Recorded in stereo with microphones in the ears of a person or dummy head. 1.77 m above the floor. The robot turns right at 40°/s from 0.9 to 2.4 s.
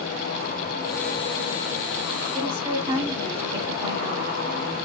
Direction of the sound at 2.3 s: 30° right (ahead or behind).